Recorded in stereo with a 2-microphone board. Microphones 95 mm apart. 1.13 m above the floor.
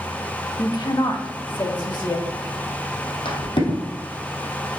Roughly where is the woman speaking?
Left.